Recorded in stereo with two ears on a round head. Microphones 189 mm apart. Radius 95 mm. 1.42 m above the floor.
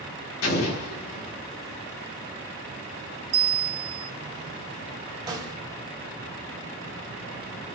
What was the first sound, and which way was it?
An explosion, 70° left (ahead or behind).